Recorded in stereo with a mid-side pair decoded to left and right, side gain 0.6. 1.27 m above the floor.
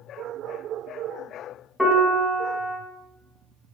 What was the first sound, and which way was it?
A piano, 10° left.